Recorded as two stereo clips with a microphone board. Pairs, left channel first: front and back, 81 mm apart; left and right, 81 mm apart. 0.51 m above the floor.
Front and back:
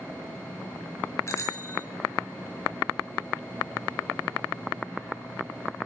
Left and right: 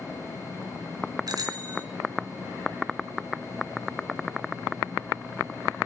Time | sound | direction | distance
1.3 | a bicycle bell | 55° right | 4 m